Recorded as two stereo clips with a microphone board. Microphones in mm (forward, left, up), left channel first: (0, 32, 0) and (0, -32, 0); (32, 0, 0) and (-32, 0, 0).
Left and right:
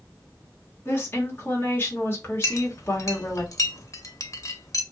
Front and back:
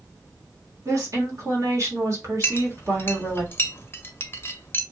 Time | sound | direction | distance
0.8 | a woman speaking | 145° left | 1.5 m
2.4 | a clink | 55° left | 0.5 m